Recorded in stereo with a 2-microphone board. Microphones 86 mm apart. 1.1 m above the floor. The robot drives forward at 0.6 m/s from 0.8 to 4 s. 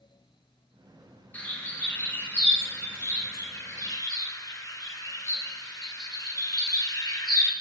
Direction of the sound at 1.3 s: 20° left (ahead or behind).